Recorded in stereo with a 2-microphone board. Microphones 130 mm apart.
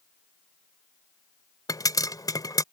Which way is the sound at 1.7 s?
30° left (ahead or behind).